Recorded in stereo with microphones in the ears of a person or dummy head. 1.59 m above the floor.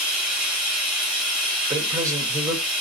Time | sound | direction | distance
0.0 | running water | 5° right (ahead or behind) | 1.4 m
1.7 | a man speaking | 15° right (ahead or behind) | 1.2 m